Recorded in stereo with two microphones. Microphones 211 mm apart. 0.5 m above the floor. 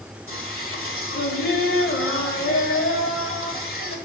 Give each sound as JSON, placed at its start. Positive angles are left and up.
{"t": 0.3, "sound": "singing", "side_deg": 70, "distance_m": 1.6}